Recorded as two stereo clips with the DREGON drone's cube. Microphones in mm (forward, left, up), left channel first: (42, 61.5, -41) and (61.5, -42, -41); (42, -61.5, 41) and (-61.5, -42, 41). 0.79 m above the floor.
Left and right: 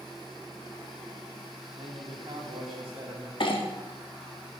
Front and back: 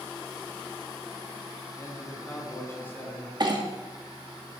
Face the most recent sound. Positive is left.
turn(degrees=130)